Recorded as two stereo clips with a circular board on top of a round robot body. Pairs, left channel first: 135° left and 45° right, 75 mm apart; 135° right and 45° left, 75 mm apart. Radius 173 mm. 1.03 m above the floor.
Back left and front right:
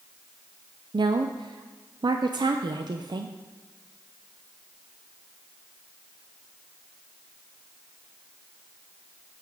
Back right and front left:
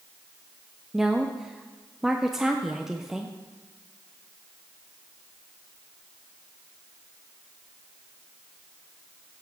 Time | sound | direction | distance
0.9 | a woman speaking | 40° right | 0.6 m